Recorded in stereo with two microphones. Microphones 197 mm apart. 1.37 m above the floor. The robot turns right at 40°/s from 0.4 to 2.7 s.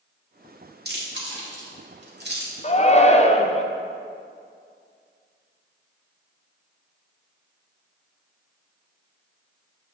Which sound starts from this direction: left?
A shout, at 2.6 s.